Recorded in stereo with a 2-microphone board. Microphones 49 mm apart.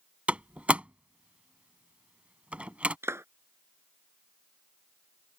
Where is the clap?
65° right (ahead or behind).